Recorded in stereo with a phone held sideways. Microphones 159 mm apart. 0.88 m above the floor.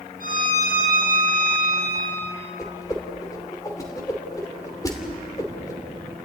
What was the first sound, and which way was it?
A violin, 65° left (ahead or behind).